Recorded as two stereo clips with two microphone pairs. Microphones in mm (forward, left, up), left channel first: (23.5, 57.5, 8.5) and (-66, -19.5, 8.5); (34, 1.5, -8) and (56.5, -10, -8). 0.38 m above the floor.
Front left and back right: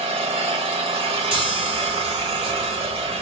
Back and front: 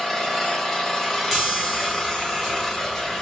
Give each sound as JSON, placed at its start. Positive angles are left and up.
{"t": 0.0, "sound": "an engine running", "azimuth_deg": -120, "distance_m": 1.2}
{"t": 1.3, "sound": "a chime", "azimuth_deg": -105, "distance_m": 1.3}